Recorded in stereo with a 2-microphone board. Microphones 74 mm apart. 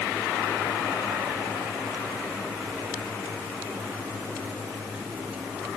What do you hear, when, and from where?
Only background noise.